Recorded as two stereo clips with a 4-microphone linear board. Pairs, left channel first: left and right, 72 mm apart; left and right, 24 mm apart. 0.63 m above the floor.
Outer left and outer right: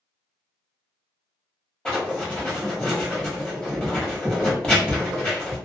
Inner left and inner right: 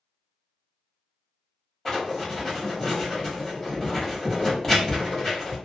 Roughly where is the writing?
Centre.